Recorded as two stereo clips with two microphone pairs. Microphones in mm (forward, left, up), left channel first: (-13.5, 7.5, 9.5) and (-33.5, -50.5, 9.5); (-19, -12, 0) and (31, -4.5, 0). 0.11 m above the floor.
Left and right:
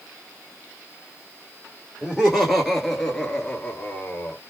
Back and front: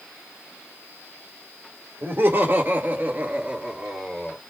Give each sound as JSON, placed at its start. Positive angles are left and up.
{"t": 2.0, "sound": "laughter", "azimuth_deg": -25, "distance_m": 2.0}